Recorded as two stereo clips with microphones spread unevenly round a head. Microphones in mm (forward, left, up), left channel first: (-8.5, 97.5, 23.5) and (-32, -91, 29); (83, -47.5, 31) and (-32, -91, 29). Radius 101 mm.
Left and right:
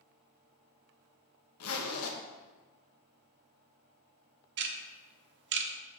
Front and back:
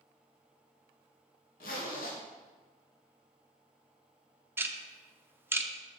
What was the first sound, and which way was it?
A zipper, 65° left.